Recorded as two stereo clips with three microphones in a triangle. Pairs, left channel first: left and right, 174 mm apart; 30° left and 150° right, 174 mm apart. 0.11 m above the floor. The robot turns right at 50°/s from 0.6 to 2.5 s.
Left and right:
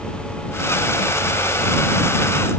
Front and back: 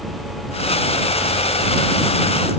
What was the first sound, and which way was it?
Only background noise.